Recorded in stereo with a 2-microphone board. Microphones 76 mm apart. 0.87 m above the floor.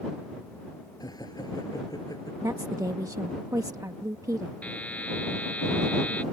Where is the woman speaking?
50° right (ahead or behind).